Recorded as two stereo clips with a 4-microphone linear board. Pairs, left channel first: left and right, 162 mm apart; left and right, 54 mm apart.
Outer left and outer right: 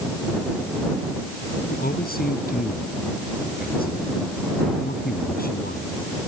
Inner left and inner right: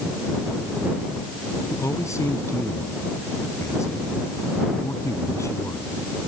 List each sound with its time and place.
1.7 s a man speaking: 70° left (ahead or behind)